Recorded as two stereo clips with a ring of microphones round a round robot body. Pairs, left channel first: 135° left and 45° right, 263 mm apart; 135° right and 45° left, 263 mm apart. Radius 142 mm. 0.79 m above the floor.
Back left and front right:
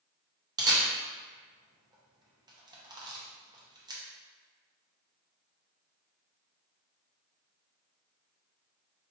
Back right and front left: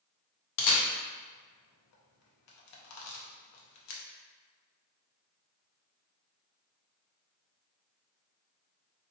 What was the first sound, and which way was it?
A camera shutter, 120° right.